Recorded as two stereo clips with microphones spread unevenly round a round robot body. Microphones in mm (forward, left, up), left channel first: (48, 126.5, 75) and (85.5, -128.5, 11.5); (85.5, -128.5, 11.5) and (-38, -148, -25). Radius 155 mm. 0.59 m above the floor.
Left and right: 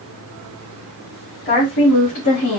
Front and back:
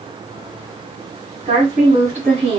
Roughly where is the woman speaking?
Behind.